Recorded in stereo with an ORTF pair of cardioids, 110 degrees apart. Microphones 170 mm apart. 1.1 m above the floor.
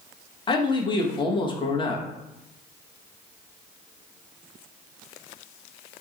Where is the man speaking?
30° left, 0.9 m.